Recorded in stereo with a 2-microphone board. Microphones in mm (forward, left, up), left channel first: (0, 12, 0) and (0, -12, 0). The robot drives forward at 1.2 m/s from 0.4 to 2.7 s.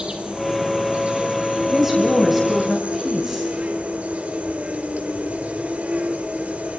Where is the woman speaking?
10° right (ahead or behind), 2.5 m.